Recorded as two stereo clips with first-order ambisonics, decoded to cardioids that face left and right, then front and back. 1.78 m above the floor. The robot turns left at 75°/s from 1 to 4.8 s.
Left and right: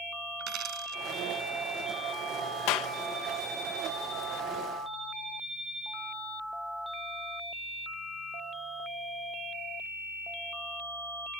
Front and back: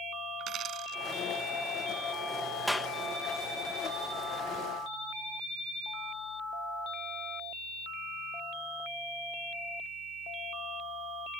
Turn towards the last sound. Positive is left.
turn(degrees=-65)